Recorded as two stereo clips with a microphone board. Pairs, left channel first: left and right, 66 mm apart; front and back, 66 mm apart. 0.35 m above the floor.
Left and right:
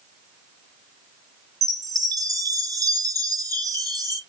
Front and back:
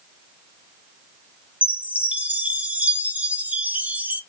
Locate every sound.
1.6 s a chime: 110° right, 0.6 m